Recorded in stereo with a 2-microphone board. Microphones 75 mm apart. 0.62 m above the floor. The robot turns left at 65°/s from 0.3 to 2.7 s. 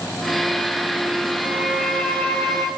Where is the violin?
155° right, 3.5 m; by 2.7 s 125° left, 3.5 m.